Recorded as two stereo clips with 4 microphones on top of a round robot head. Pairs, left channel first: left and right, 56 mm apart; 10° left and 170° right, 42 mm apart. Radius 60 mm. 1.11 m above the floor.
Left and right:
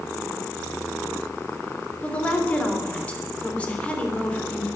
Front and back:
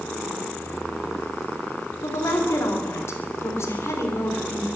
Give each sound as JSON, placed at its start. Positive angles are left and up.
{"t": 2.0, "sound": "a woman speaking", "azimuth_deg": 20, "distance_m": 3.5}